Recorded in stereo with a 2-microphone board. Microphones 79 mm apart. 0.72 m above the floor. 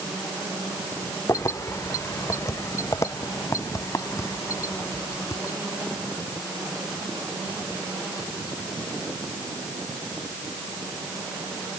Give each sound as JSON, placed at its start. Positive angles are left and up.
{"t": 1.3, "sound": "keys jangling", "side_deg": 40}